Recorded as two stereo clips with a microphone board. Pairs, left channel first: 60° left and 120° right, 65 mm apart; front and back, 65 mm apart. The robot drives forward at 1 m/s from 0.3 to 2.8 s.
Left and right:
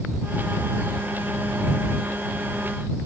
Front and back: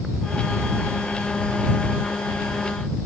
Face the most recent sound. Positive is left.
No sound to turn to.